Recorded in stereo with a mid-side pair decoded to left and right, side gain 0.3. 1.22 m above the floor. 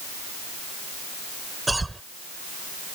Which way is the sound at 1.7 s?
20° right.